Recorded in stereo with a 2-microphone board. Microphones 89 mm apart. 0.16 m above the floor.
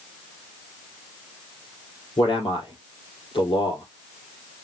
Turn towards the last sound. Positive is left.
turn(degrees=75)  # may be behind; listen again after turning